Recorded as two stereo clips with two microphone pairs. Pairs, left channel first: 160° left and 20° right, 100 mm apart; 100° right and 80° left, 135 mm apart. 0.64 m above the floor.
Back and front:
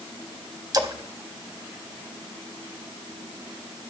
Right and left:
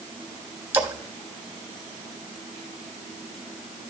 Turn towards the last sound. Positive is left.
turn(degrees=10)